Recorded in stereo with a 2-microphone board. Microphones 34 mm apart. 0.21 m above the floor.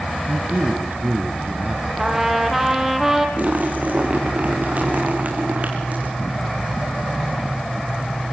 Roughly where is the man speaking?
Right.